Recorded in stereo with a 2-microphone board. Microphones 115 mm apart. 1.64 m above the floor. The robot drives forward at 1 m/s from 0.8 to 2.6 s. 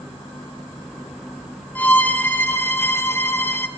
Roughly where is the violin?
Centre.